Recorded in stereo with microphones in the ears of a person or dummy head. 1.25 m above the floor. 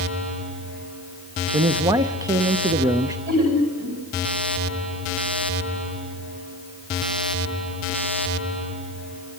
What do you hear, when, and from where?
1.5 s a man speaking: 15° right (ahead or behind), 0.6 m
3.3 s laughter: 45° right (ahead or behind), 7.5 m